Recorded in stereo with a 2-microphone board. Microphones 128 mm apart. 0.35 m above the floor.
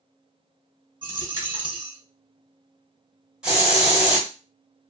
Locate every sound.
1.0 s a dropped coin: 35° right (ahead or behind), 1.1 m
3.4 s a hiss: 5° right (ahead or behind), 1.5 m